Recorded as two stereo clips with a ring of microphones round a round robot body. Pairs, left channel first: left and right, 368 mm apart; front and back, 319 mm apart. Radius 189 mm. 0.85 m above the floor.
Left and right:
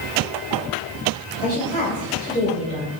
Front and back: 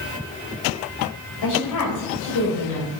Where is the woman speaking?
15° left, 4 m.